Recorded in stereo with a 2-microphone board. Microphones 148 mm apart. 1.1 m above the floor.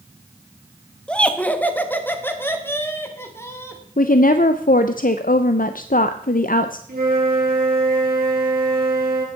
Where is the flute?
80° right, 3 m.